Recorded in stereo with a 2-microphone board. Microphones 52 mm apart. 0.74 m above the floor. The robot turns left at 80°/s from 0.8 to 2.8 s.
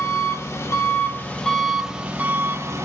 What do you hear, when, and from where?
0.0 s an engine running: 70° left, 0.9 m; by 2.9 s 90° right, 0.9 m